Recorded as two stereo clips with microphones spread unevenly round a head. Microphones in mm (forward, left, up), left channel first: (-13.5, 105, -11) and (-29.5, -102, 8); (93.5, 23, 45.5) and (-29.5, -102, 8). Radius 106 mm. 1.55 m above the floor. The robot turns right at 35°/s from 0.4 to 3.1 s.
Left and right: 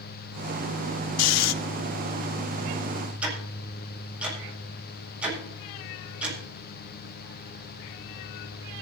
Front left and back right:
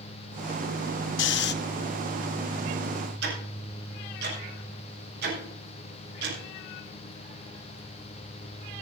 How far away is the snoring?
About 0.5 m.